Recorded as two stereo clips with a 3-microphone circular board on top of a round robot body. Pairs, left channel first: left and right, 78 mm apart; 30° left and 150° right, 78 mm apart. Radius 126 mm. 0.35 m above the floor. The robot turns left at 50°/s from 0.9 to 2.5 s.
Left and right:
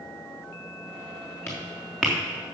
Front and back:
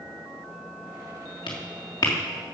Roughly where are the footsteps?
Ahead left.